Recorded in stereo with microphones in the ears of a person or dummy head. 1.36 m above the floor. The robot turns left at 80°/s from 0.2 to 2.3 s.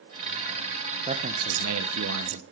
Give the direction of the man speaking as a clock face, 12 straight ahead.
1 o'clock.